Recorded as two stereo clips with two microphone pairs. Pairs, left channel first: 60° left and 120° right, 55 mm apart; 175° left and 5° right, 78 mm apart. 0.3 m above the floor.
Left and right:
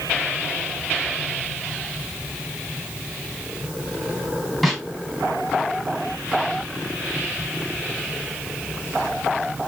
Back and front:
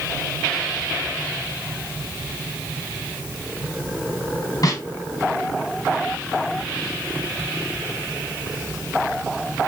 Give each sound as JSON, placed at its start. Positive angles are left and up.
{"t": 4.6, "sound": "a snare drum", "azimuth_deg": 150, "distance_m": 3.0}